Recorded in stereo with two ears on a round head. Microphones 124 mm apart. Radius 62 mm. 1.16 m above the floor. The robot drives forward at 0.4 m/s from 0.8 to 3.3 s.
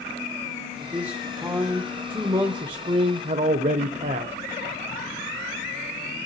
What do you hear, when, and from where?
0.8 s a man speaking: 15° right (ahead or behind), 1.4 m; by 4.3 s 45° right (ahead or behind), 0.5 m